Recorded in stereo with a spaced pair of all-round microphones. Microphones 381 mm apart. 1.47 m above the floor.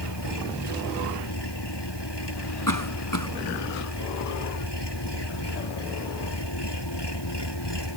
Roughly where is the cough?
Left.